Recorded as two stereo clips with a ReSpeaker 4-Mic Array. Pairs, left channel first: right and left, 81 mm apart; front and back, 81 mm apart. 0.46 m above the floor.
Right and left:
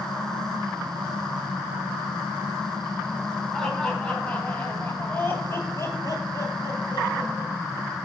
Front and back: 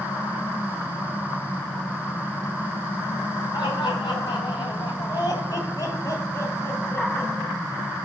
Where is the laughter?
5° right, 3 m; by 7.5 s 70° right, 2.5 m.